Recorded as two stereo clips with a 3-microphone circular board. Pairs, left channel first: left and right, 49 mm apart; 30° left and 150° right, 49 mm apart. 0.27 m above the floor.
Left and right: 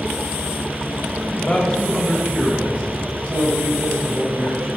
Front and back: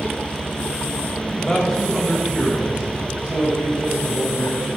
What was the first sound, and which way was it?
A man speaking, 105° left.